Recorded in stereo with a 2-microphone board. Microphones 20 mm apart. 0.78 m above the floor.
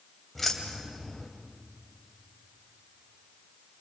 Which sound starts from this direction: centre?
Keys jangling, at 0.3 s.